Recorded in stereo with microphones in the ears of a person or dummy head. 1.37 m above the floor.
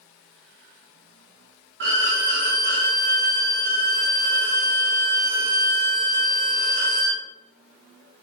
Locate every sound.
1.8 s a violin: 60° right (ahead or behind), 1.0 m